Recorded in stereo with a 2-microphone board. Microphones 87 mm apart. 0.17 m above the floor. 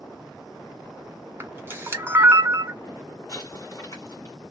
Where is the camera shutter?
25° right (ahead or behind), 1.2 m.